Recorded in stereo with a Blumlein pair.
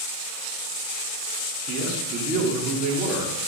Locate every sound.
1.7 s a man speaking: 35° right, 3 m